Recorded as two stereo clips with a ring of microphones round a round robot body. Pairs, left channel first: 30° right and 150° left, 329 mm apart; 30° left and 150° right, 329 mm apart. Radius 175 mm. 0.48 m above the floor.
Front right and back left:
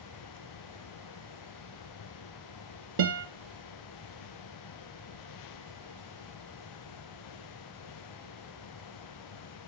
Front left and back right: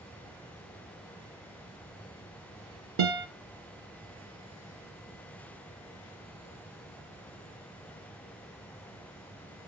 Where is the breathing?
No breathing in this recording.